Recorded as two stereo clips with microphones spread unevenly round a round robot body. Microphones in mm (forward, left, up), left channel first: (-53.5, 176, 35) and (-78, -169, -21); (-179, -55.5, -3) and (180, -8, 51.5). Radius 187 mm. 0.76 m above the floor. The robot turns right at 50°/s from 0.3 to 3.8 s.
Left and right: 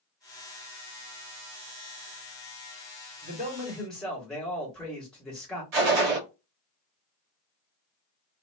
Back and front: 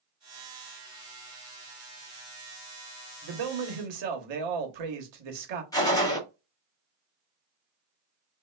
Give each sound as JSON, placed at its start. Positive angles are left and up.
{"t": 3.2, "sound": "a man speaking", "azimuth_deg": -35, "distance_m": 1.2}
{"t": 5.7, "sound": "a gunshot", "azimuth_deg": -95, "distance_m": 1.9}